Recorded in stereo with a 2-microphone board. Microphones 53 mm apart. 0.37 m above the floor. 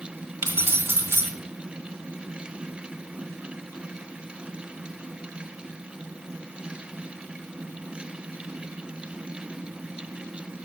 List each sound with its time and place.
0.4 s keys jangling: 40° right (ahead or behind), 1.7 m